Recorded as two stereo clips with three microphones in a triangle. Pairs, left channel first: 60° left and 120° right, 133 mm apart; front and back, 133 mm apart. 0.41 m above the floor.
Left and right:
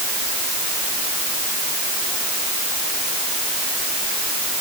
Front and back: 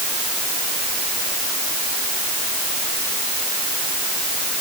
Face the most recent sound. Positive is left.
No sound to turn to.